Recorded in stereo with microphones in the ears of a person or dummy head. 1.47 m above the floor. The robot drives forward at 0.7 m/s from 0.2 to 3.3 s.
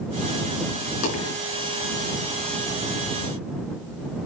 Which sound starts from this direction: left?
A dropped coin, at 1.0 s.